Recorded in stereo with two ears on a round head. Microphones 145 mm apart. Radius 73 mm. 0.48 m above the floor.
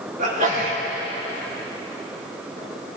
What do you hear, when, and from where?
0.2 s a sneeze: 55° right (ahead or behind), 4.5 m